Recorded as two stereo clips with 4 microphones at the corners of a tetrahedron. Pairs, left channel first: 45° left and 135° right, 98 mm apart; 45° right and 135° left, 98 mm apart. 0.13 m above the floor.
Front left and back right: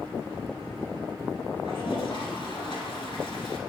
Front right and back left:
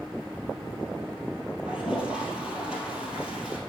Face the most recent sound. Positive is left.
turn(degrees=60)